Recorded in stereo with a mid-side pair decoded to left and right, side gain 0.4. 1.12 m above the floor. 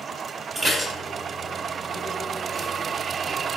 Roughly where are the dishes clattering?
Ahead right.